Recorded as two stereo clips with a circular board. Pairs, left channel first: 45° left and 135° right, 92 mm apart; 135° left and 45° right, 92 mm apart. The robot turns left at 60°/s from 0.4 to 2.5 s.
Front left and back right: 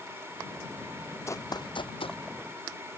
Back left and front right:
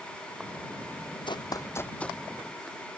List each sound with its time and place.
1.3 s running footsteps: 105° left; by 2.2 s 50° left